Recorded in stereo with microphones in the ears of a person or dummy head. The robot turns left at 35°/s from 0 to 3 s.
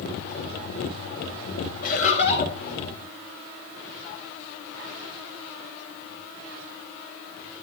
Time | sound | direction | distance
1.8 | laughter | 60° left (ahead or behind) | 6 m